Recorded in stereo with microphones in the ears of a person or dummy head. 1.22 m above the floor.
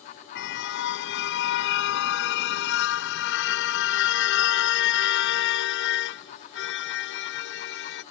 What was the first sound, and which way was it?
A car horn, 70° left (ahead or behind).